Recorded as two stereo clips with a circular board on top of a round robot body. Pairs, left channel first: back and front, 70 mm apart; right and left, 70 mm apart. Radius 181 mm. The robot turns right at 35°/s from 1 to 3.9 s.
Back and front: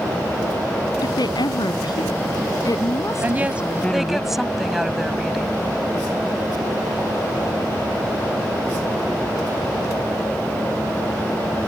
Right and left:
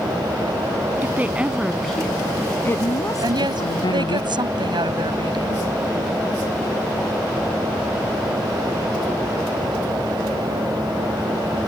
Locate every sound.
1.0 s a woman speaking: 155° left; by 4.2 s 105° right
3.2 s a woman speaking: 60° left; by 5.6 s 85° left